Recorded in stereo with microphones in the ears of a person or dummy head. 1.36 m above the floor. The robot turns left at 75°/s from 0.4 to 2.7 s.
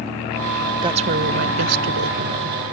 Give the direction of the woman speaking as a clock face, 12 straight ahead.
1 o'clock.